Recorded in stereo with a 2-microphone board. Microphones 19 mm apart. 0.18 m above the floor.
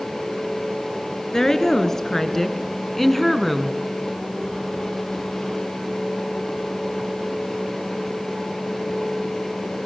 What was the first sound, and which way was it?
A woman speaking, 20° left (ahead or behind).